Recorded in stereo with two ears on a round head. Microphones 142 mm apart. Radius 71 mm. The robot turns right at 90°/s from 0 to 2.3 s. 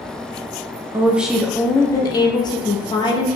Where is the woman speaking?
15° right (ahead or behind), 0.5 m; by 3.4 s 25° left (ahead or behind), 0.5 m.